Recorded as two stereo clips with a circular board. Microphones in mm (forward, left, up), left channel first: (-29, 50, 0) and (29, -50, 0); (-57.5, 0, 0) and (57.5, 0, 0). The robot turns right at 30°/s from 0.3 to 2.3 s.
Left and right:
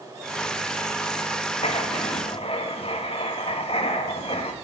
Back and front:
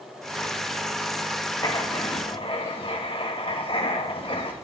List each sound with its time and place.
1.6 s writing: 130° left, 2.0 m; by 4.5 s 150° left, 2.0 m